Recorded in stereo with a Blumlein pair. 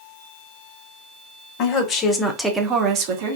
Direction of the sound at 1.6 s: 35° left.